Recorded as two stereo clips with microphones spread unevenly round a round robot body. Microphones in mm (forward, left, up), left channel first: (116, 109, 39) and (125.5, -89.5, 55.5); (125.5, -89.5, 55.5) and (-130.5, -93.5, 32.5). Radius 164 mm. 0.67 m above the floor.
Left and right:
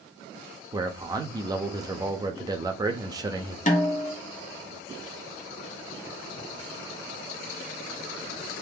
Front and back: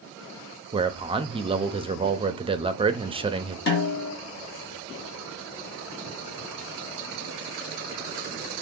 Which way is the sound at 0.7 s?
150° right.